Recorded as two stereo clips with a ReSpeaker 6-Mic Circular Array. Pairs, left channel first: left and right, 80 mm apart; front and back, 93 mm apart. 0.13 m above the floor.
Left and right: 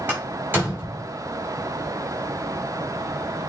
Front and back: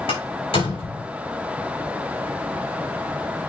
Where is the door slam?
20° right, 6 m.